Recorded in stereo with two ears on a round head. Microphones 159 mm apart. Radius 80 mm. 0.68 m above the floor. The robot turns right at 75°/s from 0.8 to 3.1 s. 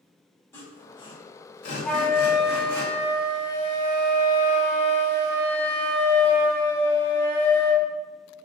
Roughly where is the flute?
Ahead.